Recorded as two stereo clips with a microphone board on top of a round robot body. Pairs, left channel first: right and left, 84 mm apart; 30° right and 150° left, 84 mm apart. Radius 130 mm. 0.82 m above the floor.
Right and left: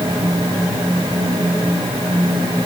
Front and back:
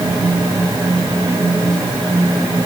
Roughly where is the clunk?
I don't hear a clunk.